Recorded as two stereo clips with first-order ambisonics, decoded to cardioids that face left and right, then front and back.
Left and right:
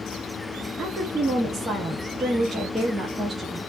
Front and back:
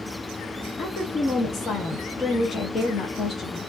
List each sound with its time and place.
0.8 s a woman speaking: 25° right, 0.6 m